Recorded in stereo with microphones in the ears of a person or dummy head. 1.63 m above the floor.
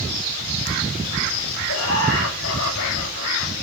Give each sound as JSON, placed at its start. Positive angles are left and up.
{"t": 1.7, "sound": "laughter", "side_deg": 80, "distance_m": 6.5}